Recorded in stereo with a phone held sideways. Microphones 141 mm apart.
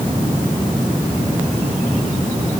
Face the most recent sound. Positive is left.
No sound to turn to.